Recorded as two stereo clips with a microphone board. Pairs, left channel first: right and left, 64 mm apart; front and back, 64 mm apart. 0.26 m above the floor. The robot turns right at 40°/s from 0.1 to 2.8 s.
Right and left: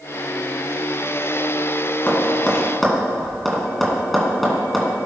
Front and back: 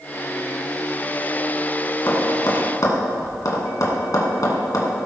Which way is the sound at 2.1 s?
30° right.